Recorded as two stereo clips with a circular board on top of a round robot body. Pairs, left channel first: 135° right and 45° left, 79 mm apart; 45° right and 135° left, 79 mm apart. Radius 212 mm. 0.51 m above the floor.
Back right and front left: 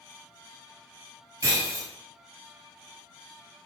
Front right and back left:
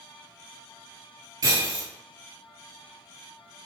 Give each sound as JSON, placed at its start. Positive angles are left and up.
{"t": 1.4, "sound": "breaking glass", "azimuth_deg": 90, "distance_m": 1.2}